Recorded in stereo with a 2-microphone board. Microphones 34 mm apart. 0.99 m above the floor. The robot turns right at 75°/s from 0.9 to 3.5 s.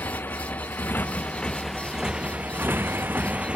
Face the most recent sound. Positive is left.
turn(degrees=-35)  # may be behind; listen again after turning